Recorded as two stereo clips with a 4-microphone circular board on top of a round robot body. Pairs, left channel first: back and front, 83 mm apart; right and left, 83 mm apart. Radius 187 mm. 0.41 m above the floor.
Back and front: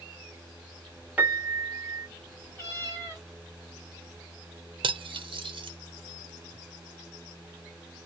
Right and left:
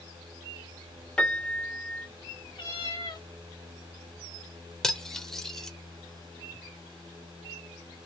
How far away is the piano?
About 1.4 m.